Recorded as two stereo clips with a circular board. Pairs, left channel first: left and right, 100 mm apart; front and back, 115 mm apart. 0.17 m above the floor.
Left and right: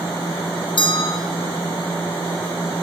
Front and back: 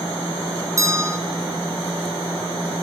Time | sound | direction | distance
0.8 | a bell | 120° left | 1.8 m